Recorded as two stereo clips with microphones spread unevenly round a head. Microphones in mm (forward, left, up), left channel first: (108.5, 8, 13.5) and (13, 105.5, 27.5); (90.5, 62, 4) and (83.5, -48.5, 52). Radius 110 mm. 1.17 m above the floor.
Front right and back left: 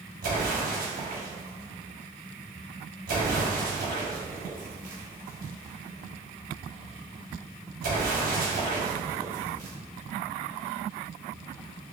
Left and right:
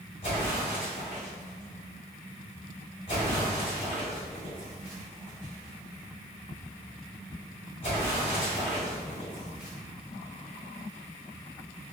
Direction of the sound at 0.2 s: 155° left.